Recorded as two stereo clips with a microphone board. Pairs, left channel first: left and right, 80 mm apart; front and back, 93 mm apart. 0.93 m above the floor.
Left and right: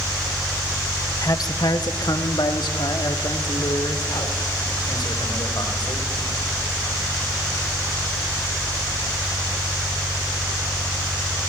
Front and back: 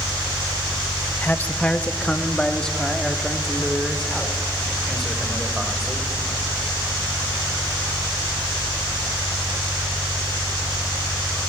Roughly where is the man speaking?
Ahead left.